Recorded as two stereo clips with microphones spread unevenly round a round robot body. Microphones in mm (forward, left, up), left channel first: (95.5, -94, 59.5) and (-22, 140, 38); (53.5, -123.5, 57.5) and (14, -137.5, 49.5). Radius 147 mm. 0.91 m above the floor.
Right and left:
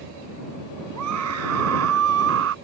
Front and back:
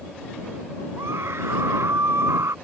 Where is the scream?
150° left; by 2.5 s 165° left.